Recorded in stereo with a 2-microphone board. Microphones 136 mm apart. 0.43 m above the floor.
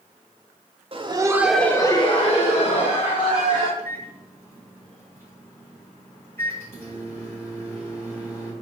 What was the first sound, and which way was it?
Laughter, 40° right (ahead or behind).